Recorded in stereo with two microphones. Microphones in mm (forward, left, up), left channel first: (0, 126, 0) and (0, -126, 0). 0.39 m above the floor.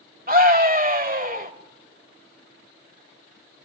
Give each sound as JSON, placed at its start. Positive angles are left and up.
{"t": 0.3, "sound": "a scream", "side_deg": -35, "distance_m": 1.5}